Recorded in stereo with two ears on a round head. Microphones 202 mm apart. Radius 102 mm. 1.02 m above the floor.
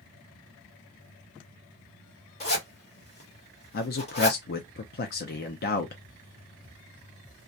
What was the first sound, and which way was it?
A zipper, 30° left (ahead or behind).